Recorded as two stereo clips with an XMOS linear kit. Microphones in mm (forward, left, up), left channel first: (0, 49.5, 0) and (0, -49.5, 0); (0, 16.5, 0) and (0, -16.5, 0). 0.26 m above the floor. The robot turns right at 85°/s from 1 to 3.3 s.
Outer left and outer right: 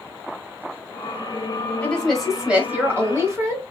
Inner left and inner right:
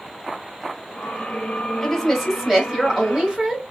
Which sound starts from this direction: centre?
A woman speaking, at 1.8 s.